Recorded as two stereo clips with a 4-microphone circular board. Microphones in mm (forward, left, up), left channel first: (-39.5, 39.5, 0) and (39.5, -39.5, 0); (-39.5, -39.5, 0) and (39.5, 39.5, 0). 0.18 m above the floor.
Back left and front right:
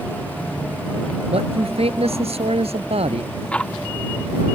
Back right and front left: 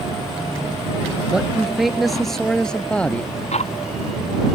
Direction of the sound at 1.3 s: 35° right.